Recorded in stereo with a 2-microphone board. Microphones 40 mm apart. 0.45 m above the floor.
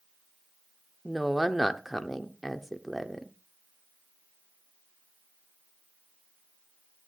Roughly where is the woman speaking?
Centre.